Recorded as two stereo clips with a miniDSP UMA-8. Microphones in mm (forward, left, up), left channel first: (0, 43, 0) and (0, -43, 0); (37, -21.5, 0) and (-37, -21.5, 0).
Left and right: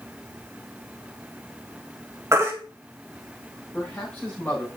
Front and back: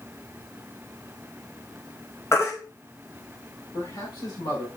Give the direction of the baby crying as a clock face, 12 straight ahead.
1 o'clock.